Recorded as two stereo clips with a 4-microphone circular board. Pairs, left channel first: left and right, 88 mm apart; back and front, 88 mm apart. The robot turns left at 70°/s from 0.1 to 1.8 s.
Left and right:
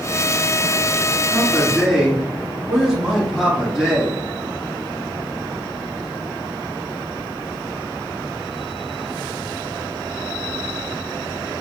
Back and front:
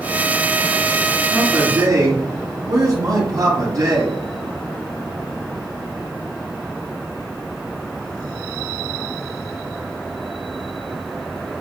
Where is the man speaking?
25° left, 1.9 m; by 4.2 s 10° right, 1.9 m.